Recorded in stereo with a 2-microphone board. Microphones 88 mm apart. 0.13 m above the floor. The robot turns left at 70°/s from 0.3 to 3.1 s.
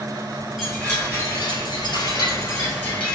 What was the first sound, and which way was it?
A chime, straight behind.